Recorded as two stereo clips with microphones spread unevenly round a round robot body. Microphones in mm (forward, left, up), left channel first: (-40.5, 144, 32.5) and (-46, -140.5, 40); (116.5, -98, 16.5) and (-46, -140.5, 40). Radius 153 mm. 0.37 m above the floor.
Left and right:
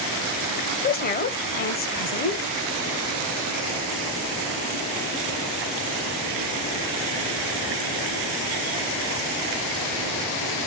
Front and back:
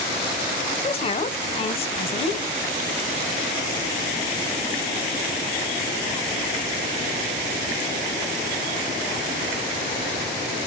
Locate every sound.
0.8 s a woman speaking: 45° left, 1.2 m